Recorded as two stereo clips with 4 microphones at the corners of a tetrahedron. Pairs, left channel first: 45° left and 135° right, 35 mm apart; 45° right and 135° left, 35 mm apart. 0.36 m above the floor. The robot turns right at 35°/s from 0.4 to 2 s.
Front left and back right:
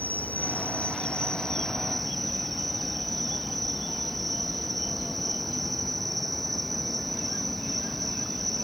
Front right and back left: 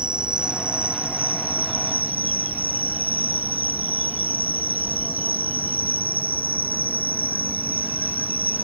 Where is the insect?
80° left; by 8.7 s 135° left.